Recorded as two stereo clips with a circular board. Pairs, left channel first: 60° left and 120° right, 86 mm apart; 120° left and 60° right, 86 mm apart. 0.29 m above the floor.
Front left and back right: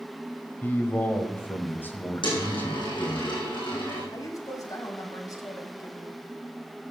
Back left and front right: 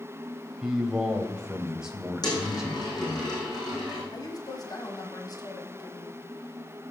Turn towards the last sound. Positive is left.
turn(degrees=95)